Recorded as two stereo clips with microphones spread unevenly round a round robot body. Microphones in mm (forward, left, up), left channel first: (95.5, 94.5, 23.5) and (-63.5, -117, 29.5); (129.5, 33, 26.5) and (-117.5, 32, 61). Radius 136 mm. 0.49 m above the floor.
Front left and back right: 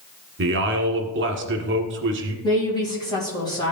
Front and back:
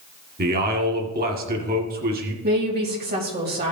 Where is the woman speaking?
125° left, 3 m.